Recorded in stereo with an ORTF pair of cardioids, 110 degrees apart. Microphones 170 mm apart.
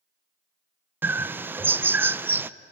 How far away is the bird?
About 0.6 m.